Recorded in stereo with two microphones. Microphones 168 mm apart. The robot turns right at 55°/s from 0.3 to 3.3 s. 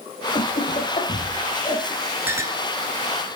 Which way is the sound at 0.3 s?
40° left (ahead or behind).